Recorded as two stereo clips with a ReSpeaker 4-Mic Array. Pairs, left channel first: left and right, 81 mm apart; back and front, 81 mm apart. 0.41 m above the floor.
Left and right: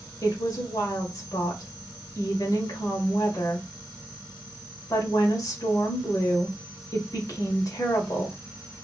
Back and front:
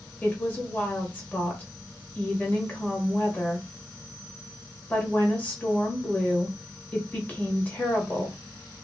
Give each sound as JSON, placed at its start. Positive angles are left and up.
{"t": 0.2, "sound": "a woman speaking", "azimuth_deg": 115, "distance_m": 1.4}